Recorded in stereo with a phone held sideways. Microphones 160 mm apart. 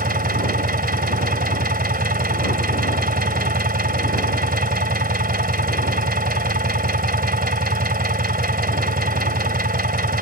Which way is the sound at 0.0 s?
65° right (ahead or behind).